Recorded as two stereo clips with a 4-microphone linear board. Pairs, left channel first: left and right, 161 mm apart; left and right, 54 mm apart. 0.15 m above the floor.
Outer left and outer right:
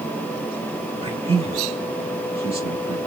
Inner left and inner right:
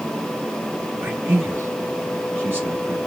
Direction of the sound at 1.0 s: 35° right (ahead or behind).